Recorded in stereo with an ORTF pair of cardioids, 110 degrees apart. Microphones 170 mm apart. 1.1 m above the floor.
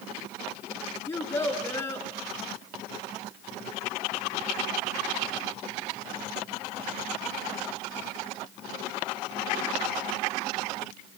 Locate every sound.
1.1 s a child speaking: 15° left, 7 m